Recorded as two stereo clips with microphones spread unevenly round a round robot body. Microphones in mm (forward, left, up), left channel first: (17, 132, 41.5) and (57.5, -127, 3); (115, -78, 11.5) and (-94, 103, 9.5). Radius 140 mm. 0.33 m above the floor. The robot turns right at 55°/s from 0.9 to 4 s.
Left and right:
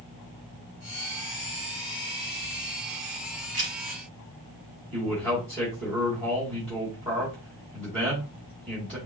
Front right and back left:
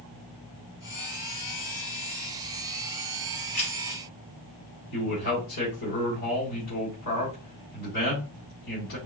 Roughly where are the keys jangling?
Ahead right.